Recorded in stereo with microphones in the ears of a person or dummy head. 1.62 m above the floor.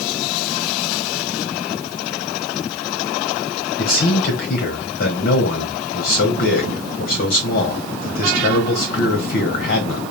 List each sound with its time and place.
3.8 s a man speaking: 55° left (ahead or behind), 1.3 m